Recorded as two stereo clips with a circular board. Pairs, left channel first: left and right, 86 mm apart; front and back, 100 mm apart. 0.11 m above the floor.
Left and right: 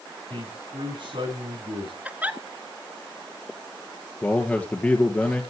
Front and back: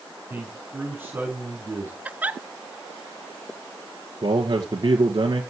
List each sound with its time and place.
0.3 s a man speaking: 110° right, 7 m
2.0 s a giggle: 130° right, 0.9 m
4.2 s a man speaking: 155° left, 2.0 m